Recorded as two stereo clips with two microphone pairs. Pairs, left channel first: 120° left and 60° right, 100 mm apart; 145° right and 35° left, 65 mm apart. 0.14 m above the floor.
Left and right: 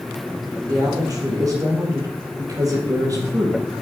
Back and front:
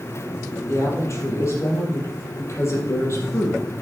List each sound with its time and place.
0.7 s a woman speaking: 110° right, 4 m